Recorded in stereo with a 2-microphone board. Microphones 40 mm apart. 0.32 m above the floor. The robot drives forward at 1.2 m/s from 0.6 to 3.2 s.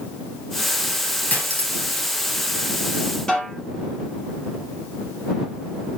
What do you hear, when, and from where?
1.3 s cutlery clinking: 40° left (ahead or behind), 4 m; by 2.1 s 50° left (ahead or behind), 3.5 m
3.3 s a snare drum: 15° left (ahead or behind), 4.5 m